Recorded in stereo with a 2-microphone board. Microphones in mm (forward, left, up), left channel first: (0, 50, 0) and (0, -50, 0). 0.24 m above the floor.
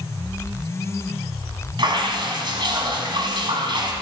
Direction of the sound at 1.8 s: 50° right (ahead or behind).